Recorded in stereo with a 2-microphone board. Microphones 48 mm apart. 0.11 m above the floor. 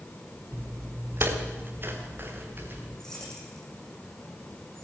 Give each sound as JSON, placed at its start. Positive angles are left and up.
{"t": 0.5, "sound": "footsteps", "side_deg": -55, "distance_m": 1.5}
{"t": 3.0, "sound": "keys jangling", "side_deg": 10, "distance_m": 4.0}